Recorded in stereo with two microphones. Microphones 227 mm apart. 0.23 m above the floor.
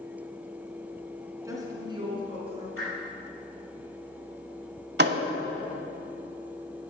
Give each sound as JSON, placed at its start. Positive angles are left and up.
{"t": 1.4, "sound": "a woman speaking", "side_deg": -15, "distance_m": 2.5}
{"t": 2.8, "sound": "a whoosh", "side_deg": 75, "distance_m": 4.0}
{"t": 5.0, "sound": "a thud", "side_deg": -50, "distance_m": 0.7}